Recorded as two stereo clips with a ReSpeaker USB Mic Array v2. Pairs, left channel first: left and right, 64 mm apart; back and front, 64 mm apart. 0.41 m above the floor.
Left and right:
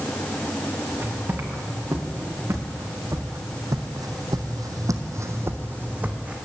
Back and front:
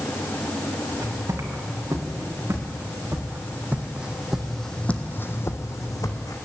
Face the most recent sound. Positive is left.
turn(degrees=-160)